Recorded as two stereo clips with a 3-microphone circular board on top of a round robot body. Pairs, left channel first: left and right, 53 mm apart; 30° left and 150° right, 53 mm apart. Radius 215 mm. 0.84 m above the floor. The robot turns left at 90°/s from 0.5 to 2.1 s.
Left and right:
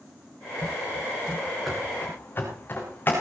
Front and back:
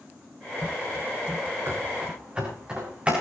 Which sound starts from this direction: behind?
Running footsteps, at 1.7 s.